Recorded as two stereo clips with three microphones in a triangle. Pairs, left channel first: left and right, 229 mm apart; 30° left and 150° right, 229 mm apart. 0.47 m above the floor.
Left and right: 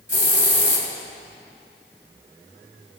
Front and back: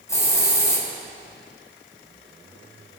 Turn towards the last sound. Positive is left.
turn(degrees=105)